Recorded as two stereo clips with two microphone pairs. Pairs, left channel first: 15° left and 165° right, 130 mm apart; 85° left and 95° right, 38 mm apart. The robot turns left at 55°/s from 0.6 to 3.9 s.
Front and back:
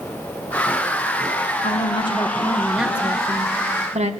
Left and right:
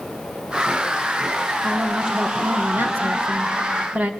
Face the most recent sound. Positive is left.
turn(degrees=-135)